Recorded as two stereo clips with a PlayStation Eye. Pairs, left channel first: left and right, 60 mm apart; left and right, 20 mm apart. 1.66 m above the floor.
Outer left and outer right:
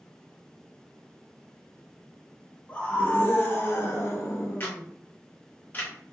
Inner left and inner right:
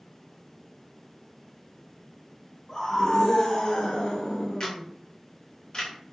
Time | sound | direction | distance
2.7 | a scream | 25° left (ahead or behind) | 1.1 m
4.6 | a camera shutter | 30° left (ahead or behind) | 0.9 m